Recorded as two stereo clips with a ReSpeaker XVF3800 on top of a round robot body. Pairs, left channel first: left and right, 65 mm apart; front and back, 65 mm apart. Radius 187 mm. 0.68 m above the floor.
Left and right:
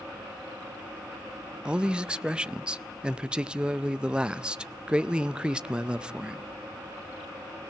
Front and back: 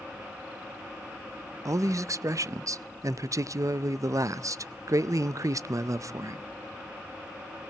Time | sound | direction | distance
1.6 | a man speaking | 165° right | 0.6 m